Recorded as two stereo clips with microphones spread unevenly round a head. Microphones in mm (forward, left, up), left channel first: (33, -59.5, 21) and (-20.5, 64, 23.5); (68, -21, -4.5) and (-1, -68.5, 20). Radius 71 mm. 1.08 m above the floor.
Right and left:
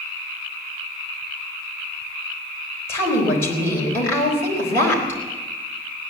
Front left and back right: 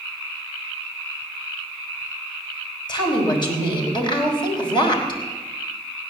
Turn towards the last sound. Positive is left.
turn(degrees=5)